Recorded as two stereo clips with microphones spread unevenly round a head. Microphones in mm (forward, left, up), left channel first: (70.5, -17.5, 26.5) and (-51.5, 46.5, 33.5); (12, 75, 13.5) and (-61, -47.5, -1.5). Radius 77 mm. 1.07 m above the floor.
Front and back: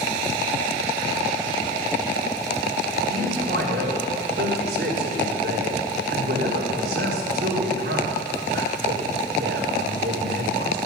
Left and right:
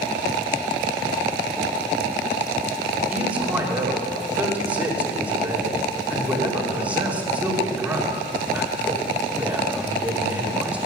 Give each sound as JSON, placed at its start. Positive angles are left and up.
{"t": 3.1, "sound": "a man speaking", "azimuth_deg": 160, "distance_m": 3.0}